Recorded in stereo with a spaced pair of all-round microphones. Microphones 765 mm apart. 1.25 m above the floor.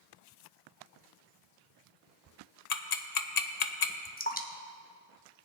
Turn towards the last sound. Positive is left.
turn(degrees=10)  # may be behind; listen again after turning